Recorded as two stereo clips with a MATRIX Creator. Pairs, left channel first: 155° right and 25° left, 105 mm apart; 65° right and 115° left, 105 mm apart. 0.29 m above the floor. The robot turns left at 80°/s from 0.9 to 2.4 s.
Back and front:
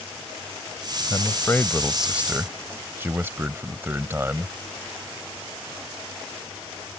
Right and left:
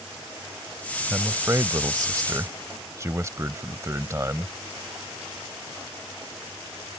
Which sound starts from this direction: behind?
A man speaking, at 1.1 s.